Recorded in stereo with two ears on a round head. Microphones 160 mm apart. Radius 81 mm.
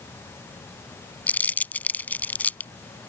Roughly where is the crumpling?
Centre.